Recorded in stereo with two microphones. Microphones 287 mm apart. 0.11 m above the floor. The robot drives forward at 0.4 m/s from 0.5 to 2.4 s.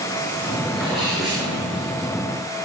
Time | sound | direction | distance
0.7 | a sneeze | centre (ahead or behind) | 9.5 m